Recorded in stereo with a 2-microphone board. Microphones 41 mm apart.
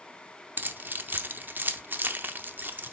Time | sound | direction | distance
0.6 | keys jangling | 50° right (ahead or behind) | 0.6 m